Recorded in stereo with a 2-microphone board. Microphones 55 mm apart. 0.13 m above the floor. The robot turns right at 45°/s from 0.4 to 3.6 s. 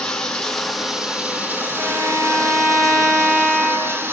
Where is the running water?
165° left, 3 m; by 4.1 s 50° right, 3 m.